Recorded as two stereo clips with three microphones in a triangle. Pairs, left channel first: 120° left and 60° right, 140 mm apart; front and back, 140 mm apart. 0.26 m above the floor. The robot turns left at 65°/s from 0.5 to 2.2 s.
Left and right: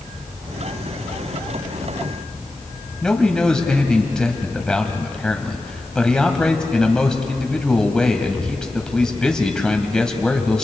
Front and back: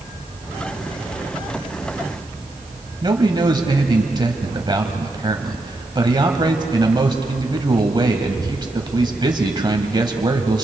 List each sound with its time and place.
3.0 s a man speaking: 160° right, 1.5 m